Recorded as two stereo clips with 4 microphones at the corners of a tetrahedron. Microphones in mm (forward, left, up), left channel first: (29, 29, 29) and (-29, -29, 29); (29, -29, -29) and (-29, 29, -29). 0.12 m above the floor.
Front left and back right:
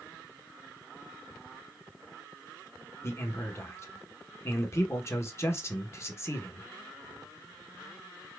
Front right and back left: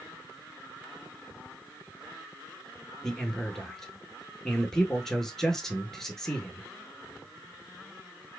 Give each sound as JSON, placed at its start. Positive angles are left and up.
{"t": 3.0, "sound": "a man speaking", "azimuth_deg": 35, "distance_m": 1.2}